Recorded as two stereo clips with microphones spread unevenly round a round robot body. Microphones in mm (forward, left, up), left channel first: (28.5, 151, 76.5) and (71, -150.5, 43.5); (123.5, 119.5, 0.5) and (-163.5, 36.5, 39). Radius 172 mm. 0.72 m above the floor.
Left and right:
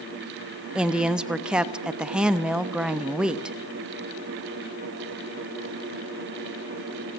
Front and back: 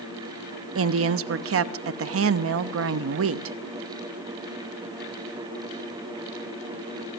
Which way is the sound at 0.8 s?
160° right.